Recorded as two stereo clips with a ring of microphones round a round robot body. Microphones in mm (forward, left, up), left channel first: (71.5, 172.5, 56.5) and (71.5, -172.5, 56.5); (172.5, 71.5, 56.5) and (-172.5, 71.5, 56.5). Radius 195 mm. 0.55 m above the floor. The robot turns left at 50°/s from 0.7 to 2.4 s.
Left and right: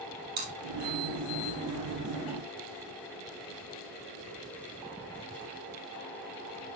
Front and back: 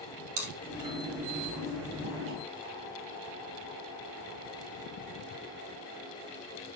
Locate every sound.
0.4 s chewing: 155° right, 3 m; by 2.4 s 120° left, 3 m